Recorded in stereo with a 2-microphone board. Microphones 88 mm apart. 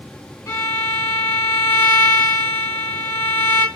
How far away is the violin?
About 0.7 m.